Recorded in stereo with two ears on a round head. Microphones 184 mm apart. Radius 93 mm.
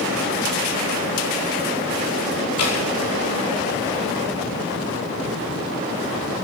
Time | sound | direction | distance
2.6 | dripping | 85° left | 5 m